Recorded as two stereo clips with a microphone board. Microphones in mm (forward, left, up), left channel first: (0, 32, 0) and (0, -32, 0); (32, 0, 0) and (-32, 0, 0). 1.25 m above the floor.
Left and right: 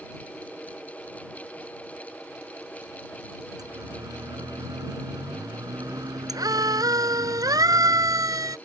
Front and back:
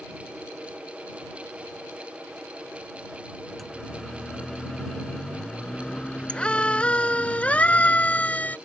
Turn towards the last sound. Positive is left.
turn(degrees=-65)